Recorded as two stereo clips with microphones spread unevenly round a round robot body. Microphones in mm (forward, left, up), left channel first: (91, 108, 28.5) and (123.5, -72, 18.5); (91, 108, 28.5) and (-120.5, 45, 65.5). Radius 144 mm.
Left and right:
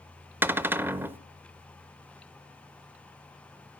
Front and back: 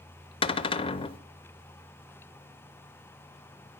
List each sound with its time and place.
0.4 s a cupboard door: 10° right, 0.6 m